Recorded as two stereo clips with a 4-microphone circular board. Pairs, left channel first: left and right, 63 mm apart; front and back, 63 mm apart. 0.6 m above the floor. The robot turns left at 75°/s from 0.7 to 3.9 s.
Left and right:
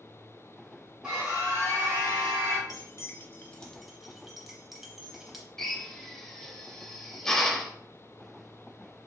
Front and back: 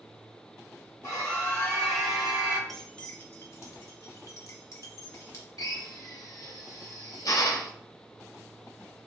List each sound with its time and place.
1.0 s a scream: 15° right, 1.6 m; by 2.6 s 135° right, 1.6 m
2.7 s keys jangling: 85° left, 0.8 m; by 5.5 s 5° right, 0.8 m
5.6 s a drill: 10° left, 0.7 m